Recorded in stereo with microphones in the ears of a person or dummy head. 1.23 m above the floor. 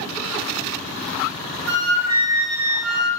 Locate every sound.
1.7 s a flute: 80° right, 0.6 m